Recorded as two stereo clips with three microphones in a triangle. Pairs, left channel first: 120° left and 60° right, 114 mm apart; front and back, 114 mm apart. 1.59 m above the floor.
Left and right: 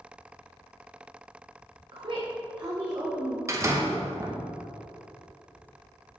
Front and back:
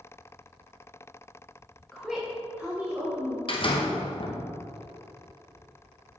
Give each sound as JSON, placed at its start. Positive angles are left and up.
{"t": 1.9, "sound": "a woman speaking", "azimuth_deg": -85, "distance_m": 0.9}
{"t": 3.5, "sound": "a door slam", "azimuth_deg": -5, "distance_m": 1.0}